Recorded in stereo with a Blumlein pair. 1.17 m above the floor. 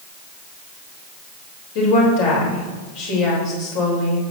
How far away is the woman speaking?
About 4 m.